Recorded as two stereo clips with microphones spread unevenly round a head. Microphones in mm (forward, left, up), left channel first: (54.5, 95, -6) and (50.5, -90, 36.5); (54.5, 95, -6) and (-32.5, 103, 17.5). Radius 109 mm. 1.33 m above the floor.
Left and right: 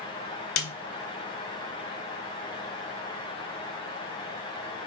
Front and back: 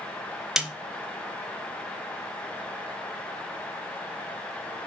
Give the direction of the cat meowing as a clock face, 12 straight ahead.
I don't hear a cat meowing.